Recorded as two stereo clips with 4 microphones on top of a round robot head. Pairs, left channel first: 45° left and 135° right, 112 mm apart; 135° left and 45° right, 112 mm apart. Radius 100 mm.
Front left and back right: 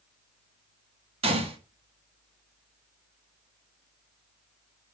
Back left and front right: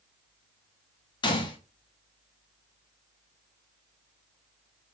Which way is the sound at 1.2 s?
175° right.